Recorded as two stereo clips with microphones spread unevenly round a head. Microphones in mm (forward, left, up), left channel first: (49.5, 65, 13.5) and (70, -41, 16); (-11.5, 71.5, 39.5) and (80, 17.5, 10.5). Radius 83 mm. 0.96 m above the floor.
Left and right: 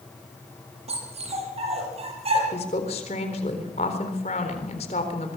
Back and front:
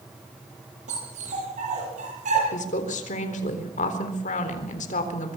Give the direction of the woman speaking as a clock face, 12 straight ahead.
7 o'clock.